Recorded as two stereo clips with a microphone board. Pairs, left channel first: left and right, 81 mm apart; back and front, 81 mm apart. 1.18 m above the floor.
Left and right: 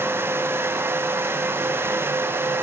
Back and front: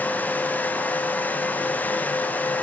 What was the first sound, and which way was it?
Only background noise.